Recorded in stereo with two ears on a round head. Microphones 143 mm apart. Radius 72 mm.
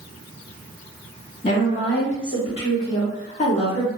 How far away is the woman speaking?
About 1.7 m.